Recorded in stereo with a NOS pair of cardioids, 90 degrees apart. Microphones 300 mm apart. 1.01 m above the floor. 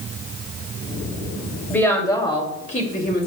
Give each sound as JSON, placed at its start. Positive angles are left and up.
{"t": 1.7, "sound": "a woman speaking", "azimuth_deg": 5, "distance_m": 2.5}